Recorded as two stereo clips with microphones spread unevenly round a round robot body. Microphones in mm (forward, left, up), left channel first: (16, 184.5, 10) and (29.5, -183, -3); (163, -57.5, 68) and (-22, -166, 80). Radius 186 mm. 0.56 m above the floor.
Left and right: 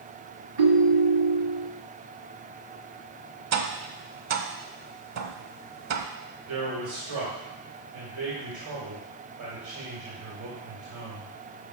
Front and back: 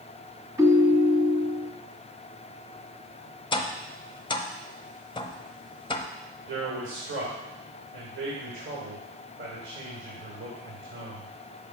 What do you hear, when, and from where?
0.6 s a ringtone: 75° right, 1.8 m
3.5 s tapping: 40° right, 0.7 m
6.5 s a man speaking: 130° right, 2.5 m